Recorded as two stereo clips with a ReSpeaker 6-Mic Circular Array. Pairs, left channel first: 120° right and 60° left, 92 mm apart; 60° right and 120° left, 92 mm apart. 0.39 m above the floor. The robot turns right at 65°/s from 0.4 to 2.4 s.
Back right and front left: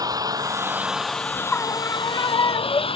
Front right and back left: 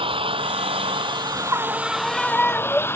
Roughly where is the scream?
Behind.